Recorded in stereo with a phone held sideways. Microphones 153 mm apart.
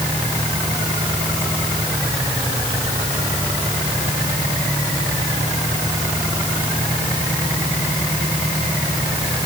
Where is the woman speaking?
I don't hear a woman speaking.